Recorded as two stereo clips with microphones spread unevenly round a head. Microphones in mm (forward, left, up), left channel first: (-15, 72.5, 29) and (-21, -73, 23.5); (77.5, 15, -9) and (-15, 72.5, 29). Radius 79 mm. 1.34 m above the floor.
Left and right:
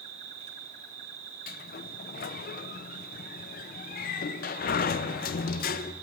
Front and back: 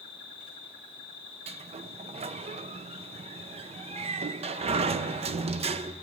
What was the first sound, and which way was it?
An insect, 135° right.